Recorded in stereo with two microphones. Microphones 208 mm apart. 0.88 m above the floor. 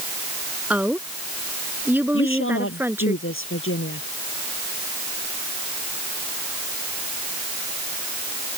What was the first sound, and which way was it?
A woman speaking, 5° right (ahead or behind).